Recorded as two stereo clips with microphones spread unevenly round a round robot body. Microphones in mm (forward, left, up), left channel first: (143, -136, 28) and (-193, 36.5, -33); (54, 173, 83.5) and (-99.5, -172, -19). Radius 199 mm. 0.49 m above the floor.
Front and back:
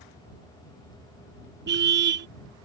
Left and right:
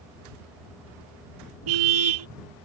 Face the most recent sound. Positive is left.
turn(degrees=-145)